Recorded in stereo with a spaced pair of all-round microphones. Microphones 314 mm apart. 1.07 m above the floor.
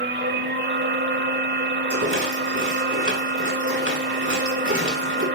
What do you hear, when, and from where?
0.0 s a machine running: 35° right (ahead or behind), 1.1 m
1.9 s a rattle: 40° right (ahead or behind), 6.5 m